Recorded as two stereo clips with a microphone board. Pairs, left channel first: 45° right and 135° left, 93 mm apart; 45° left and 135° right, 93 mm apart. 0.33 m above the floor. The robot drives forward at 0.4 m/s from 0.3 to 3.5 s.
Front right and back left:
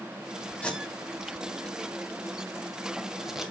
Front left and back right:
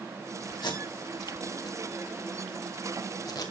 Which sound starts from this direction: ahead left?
Tape being pulled, at 0.6 s.